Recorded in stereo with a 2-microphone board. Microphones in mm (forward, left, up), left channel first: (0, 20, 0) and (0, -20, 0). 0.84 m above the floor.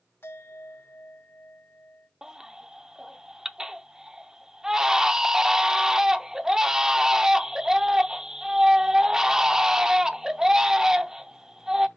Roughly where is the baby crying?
Centre.